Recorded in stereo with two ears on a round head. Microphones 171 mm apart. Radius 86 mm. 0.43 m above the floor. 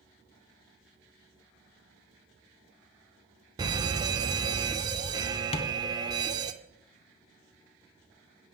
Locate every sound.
3.6 s an alarm: 20° right (ahead or behind), 0.5 m
5.5 s tapping: 30° left (ahead or behind), 0.6 m